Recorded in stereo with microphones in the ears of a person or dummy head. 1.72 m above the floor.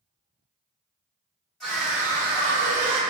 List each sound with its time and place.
1.6 s a scream: 5° left (ahead or behind), 1.1 m; by 3.0 s 65° right (ahead or behind), 0.8 m